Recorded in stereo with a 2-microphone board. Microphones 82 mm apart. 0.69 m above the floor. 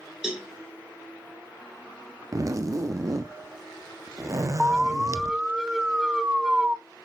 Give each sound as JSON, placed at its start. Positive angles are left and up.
{"t": 0.2, "sound": "a cowbell", "side_deg": -10, "distance_m": 1.9}
{"t": 2.3, "sound": "a zipper", "side_deg": -40, "distance_m": 0.5}
{"t": 4.6, "sound": "an alarm", "side_deg": -10, "distance_m": 0.6}